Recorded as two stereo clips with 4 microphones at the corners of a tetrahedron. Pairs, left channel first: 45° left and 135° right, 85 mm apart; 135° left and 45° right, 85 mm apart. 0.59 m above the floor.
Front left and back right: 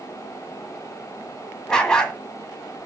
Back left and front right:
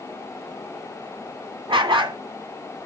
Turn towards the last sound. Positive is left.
turn(degrees=-35)